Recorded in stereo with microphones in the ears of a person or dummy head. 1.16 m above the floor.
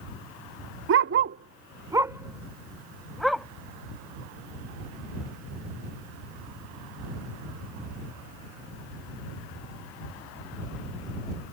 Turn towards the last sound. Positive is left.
turn(degrees=0)  # may be behind; listen again after turning